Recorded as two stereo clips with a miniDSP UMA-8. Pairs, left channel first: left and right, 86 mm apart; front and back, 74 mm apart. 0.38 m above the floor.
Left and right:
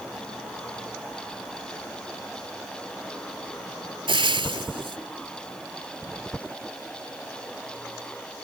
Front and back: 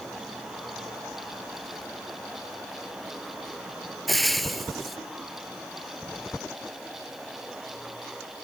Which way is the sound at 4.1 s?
90° right.